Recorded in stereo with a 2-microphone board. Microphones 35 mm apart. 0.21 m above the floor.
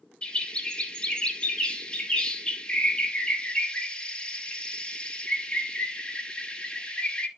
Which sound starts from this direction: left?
A bird, at 0.2 s.